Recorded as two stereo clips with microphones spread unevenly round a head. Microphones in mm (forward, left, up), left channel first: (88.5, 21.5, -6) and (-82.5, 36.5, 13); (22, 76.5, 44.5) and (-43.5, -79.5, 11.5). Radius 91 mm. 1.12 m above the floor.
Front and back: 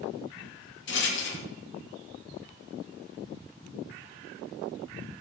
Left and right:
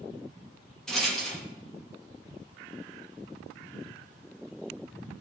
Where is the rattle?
25° right, 2.0 m.